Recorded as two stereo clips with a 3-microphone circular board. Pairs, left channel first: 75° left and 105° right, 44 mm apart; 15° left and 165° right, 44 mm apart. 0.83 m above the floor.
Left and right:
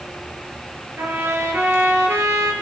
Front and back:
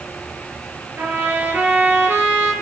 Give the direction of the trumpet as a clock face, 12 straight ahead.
4 o'clock.